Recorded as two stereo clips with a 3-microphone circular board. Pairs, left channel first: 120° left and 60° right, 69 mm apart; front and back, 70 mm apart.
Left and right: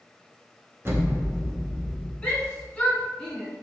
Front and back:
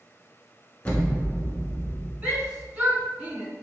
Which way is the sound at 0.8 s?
55° right.